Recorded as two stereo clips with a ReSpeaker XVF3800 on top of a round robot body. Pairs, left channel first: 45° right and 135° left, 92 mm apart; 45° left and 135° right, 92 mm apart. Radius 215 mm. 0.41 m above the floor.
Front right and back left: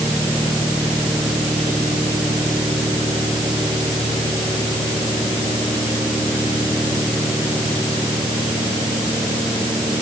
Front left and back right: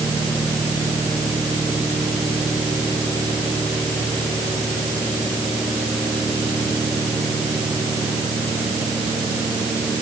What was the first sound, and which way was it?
Only background noise.